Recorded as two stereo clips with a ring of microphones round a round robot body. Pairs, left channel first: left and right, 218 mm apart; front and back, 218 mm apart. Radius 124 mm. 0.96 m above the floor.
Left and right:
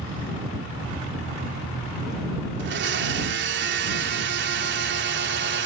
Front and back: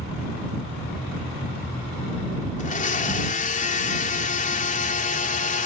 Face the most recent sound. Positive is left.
turn(degrees=-55)